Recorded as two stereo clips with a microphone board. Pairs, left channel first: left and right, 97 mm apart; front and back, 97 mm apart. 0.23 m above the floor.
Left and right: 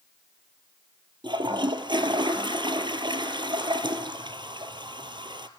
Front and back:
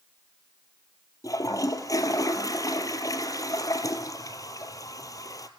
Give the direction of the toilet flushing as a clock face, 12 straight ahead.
2 o'clock.